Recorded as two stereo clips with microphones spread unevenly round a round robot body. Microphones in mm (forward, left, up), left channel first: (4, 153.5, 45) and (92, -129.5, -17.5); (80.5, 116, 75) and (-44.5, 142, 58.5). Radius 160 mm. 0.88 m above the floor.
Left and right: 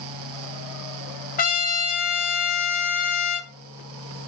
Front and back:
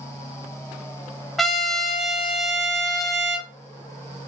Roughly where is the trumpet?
Left.